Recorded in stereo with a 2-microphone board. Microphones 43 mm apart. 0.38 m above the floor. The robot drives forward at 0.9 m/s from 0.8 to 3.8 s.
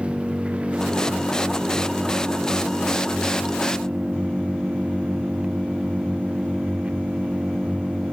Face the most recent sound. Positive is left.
turn(degrees=-30)  # may be behind; listen again after turning